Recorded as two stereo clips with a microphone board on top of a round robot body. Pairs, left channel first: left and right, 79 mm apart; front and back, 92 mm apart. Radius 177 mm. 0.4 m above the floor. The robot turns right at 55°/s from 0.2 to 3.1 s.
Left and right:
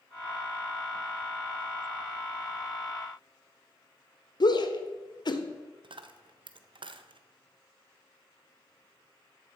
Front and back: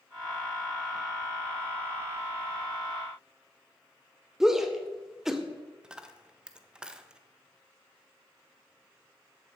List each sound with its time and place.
4.4 s a shout: 95° left, 1.9 m
5.8 s a dropped coin: 100° right, 0.9 m